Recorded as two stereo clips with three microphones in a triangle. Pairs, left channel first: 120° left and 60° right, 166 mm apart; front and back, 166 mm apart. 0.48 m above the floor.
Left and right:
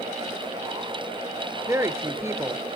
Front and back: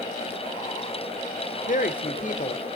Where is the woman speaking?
10° left, 1.1 m.